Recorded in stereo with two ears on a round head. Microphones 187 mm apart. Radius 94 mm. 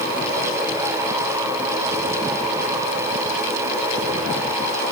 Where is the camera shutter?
I don't hear a camera shutter.